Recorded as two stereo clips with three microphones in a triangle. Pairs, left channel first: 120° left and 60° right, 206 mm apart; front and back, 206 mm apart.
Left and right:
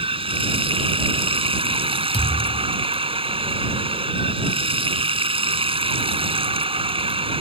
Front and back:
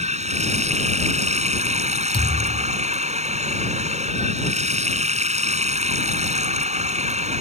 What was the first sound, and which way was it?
Running water, 125° right.